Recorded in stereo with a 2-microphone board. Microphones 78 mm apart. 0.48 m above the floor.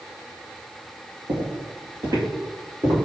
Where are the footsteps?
70° right (ahead or behind), 1.8 m; by 3.1 s 50° right (ahead or behind), 3 m.